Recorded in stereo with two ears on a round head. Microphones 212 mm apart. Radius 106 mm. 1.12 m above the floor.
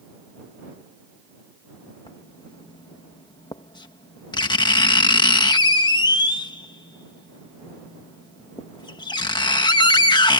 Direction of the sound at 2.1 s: 20° left (ahead or behind).